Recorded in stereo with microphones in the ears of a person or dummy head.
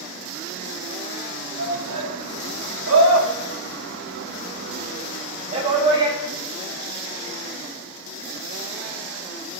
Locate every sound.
1.6 s a shout: 75° right (ahead or behind), 4.5 m; by 6.2 s 20° right (ahead or behind), 3.5 m